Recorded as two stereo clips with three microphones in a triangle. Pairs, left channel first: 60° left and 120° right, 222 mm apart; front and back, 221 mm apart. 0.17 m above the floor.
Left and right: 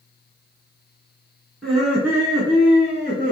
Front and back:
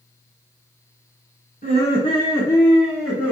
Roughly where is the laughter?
Ahead right.